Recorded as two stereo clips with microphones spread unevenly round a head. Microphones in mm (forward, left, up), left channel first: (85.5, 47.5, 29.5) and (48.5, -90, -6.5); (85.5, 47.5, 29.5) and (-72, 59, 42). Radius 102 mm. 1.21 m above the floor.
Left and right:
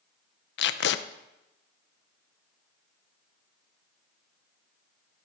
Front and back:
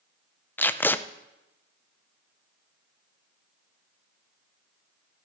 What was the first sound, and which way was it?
Tape being pulled, 75° left.